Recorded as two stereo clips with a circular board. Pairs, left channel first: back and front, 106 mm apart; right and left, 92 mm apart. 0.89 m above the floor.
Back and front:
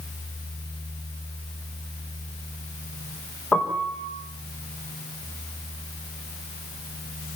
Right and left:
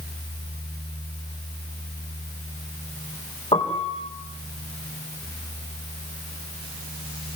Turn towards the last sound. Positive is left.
turn(degrees=-100)